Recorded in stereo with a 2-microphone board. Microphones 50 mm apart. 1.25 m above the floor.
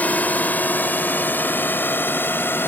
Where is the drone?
35° left (ahead or behind); by 2.7 s 45° left (ahead or behind).